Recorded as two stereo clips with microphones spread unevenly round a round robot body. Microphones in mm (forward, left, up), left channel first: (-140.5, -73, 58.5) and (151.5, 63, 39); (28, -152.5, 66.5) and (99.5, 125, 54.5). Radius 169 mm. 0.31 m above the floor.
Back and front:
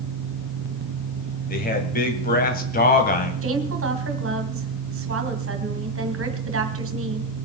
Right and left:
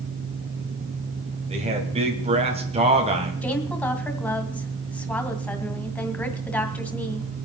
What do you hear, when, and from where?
1.5 s a man speaking: 140° left, 2 m
3.4 s a woman speaking: 25° right, 2 m